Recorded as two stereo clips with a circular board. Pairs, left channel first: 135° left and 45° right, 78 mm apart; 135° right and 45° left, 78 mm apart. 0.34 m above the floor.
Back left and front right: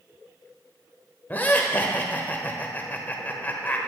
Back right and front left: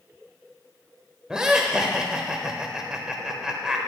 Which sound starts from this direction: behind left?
Laughter, at 1.3 s.